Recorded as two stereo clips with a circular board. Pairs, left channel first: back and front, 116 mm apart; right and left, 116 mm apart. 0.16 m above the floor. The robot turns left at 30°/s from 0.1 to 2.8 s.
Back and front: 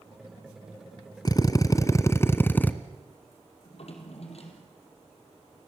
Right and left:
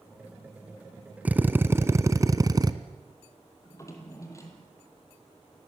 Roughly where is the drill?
Behind.